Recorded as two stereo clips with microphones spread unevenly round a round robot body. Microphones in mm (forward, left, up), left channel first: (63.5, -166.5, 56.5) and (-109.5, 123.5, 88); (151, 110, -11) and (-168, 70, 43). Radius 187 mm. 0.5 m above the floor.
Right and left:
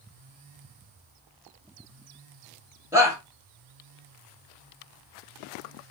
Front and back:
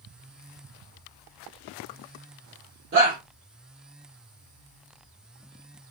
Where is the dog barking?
No dog barking in this recording.